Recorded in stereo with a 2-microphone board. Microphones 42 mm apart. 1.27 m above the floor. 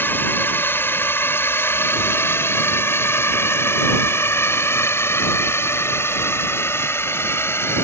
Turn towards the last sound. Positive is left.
turn(degrees=80)